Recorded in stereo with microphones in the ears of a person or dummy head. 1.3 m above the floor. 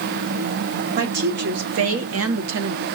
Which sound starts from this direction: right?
A woman speaking, at 1.0 s.